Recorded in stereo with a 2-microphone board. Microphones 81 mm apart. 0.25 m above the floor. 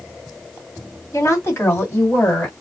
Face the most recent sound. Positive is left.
turn(degrees=15)  # may be behind; listen again after turning